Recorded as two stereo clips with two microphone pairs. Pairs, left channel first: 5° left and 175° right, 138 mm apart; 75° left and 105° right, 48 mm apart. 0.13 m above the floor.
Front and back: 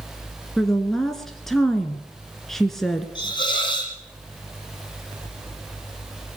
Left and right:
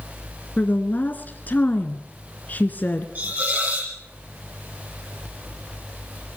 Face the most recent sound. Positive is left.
turn(degrees=-50)